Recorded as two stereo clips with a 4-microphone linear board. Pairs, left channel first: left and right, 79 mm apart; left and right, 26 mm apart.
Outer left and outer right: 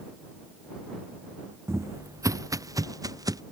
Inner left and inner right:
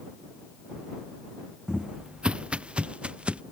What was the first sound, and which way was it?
Footsteps, 35° right (ahead or behind).